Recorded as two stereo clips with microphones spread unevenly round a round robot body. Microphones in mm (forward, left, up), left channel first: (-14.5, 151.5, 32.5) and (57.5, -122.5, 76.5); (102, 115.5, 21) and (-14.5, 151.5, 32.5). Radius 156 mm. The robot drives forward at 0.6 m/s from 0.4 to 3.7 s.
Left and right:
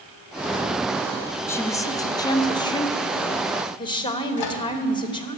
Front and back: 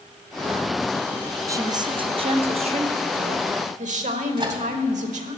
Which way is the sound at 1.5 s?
135° left.